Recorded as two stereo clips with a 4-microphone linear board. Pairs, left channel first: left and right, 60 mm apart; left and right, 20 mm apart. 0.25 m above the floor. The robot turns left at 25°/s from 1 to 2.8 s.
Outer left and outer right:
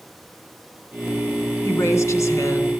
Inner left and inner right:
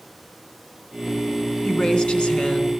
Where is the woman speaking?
45° left (ahead or behind), 2.5 m; by 2.7 s 60° left (ahead or behind), 2.5 m.